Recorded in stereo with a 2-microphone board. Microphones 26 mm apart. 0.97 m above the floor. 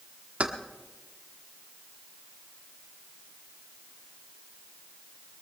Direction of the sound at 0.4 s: 55° right (ahead or behind).